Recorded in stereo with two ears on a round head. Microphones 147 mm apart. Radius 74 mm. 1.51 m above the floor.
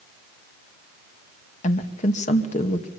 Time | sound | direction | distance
1.6 | a woman speaking | 45° left (ahead or behind) | 2.5 m